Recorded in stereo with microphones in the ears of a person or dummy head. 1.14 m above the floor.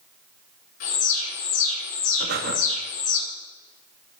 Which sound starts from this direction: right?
Breathing, at 2.2 s.